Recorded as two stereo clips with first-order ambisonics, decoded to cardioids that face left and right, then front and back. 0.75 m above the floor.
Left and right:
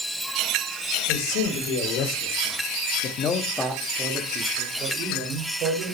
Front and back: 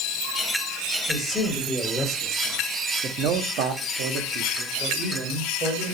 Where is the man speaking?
90° left, 3 m; by 5.9 s 125° right, 3 m.